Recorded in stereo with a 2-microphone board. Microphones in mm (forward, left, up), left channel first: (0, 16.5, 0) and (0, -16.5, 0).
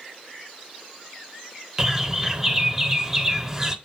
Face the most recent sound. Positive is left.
turn(degrees=-15)  # may be behind; listen again after turning